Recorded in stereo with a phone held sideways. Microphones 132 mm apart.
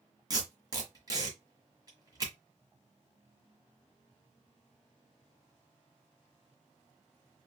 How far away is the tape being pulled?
About 1.4 m.